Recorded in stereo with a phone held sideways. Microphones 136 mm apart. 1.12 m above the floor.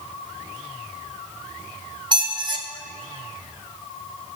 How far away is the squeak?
About 1.0 m.